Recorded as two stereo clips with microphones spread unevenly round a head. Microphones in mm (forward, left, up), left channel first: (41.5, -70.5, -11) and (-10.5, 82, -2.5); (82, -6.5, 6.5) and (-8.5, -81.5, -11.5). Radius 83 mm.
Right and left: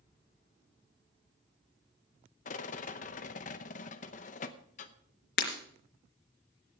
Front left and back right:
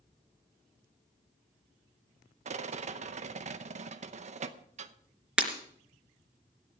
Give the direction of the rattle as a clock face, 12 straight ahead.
4 o'clock.